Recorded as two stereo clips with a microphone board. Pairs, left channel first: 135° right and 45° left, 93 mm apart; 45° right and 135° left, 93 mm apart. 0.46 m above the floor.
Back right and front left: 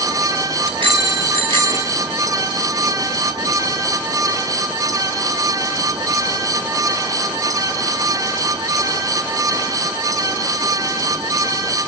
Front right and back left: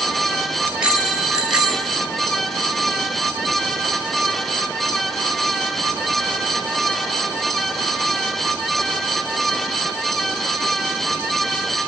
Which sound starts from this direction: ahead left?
A bicycle bell, at 0.7 s.